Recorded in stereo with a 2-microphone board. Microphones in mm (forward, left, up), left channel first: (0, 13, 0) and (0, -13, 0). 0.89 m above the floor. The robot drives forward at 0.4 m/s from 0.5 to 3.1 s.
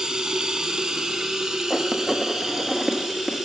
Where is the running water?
30° right (ahead or behind), 0.9 m; by 3.5 s 15° right (ahead or behind), 1.4 m.